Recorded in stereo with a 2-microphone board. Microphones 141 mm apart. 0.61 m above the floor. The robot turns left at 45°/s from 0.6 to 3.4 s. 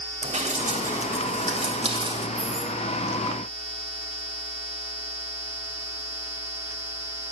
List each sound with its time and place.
0.2 s dripping: 65° right (ahead or behind), 3.5 m; by 2.3 s 30° right (ahead or behind), 3.5 m
2.4 s keys jangling: 40° right (ahead or behind), 8.5 m; by 2.8 s 60° right (ahead or behind), 8.5 m